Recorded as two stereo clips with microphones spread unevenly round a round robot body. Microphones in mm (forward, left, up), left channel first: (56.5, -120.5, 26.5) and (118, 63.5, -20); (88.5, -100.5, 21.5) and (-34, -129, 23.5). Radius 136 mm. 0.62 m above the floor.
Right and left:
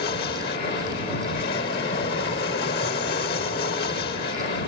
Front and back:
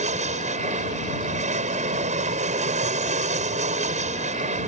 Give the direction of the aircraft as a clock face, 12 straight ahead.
5 o'clock.